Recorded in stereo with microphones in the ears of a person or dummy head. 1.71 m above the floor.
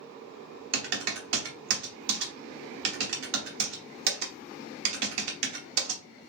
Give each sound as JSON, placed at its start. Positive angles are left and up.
{"t": 0.7, "sound": "typing on a keyboard", "side_deg": -70, "distance_m": 0.9}